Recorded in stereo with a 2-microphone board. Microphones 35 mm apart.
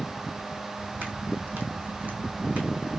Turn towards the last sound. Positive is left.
turn(degrees=-40)  # may be behind; listen again after turning